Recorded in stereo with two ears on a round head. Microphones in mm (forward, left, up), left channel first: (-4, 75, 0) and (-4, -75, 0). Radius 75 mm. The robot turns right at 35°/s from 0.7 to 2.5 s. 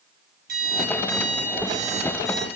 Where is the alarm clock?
60° right, 5 m; by 2.5 s straight ahead, 5 m.